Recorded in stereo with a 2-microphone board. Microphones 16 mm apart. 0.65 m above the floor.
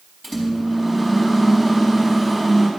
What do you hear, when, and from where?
0.2 s a microwave: 10° left (ahead or behind), 4 m